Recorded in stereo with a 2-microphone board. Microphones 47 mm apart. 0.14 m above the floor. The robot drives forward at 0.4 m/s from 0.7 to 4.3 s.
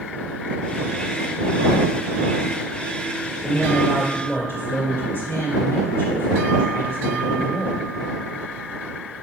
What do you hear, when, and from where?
3.4 s a woman speaking: 50° left (ahead or behind), 1.6 m